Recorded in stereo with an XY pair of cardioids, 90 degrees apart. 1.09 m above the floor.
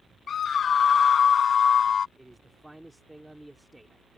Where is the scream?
60° left.